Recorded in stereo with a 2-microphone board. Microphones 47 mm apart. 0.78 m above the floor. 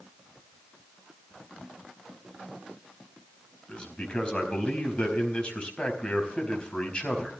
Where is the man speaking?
25° left (ahead or behind), 4.5 m.